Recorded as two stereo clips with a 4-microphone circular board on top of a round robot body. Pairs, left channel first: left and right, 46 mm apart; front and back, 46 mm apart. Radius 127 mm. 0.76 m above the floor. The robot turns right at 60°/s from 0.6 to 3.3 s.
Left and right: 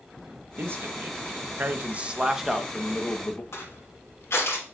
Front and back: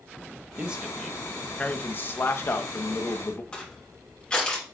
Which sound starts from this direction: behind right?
A man speaking, at 0.6 s.